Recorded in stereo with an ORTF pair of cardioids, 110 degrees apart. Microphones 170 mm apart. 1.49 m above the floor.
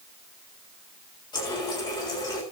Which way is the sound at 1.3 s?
25° left.